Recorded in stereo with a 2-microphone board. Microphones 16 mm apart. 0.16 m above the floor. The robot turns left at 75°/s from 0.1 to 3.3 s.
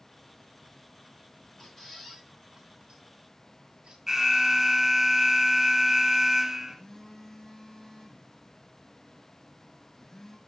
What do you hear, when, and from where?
1.6 s a squeak: 35° left (ahead or behind), 3 m; by 4.0 s 90° right, 3 m
4.1 s an alarm: 30° right (ahead or behind), 1.6 m
6.7 s a phone buzzing: 20° left (ahead or behind), 2.5 m